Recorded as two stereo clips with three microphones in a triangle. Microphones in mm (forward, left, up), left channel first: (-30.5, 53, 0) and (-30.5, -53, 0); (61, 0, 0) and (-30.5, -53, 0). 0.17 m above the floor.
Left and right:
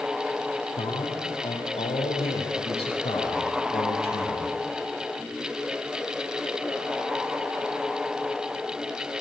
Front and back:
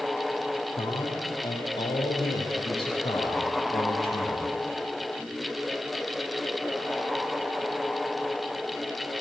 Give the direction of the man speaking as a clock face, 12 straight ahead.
10 o'clock.